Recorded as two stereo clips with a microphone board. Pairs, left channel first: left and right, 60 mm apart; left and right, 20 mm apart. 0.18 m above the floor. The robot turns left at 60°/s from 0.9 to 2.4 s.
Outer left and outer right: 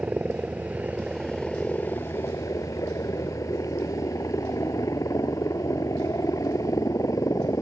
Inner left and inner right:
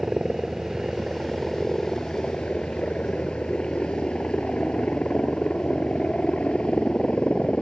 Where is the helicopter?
25° right (ahead or behind); by 7.6 s 65° left (ahead or behind).